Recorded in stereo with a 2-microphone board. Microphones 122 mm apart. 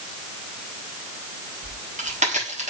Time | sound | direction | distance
1.6 | a crack | 80° right | 6.5 m